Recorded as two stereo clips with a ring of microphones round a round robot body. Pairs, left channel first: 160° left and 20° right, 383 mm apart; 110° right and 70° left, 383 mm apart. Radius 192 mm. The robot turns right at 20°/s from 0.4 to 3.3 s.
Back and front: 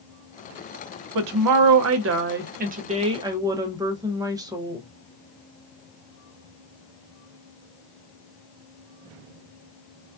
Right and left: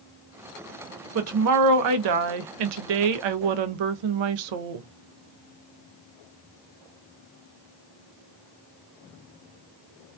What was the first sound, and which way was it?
A woman speaking, 15° left.